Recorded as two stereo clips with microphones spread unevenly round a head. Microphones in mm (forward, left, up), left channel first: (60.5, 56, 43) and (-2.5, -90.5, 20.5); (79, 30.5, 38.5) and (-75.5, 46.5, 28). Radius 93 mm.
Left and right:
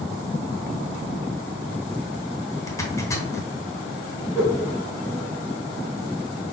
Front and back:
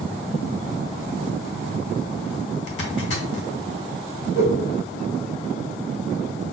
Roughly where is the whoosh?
Ahead right.